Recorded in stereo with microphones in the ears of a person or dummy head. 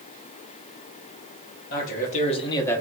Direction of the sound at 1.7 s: 45° left (ahead or behind).